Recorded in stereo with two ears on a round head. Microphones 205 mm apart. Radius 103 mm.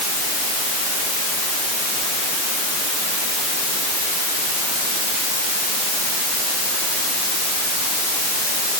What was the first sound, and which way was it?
Only background noise.